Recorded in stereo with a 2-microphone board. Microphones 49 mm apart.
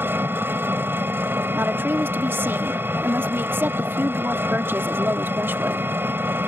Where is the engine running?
45° right (ahead or behind).